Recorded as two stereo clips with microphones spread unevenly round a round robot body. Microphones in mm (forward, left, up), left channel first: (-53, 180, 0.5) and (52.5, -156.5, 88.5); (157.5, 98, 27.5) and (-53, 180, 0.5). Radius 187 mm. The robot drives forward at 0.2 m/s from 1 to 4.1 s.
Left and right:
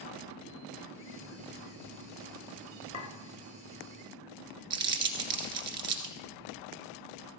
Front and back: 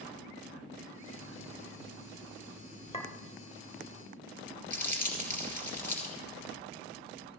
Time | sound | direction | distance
2.9 | a clink | 45° left | 1.6 m
4.7 | crumpling | 105° right | 1.5 m